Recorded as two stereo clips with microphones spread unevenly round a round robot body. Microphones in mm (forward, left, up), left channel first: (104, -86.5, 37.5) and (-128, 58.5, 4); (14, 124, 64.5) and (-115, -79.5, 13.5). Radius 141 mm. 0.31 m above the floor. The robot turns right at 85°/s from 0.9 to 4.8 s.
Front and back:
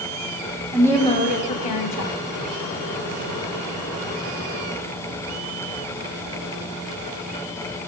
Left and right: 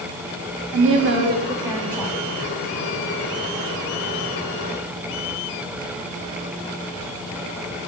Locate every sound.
0.7 s a woman speaking: 120° right, 2.5 m; by 2.1 s 10° right, 2.5 m